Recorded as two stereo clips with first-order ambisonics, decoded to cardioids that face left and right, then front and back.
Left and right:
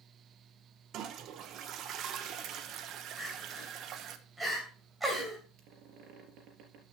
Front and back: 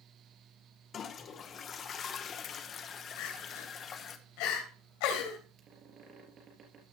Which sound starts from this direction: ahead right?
A toilet flushing, at 0.9 s.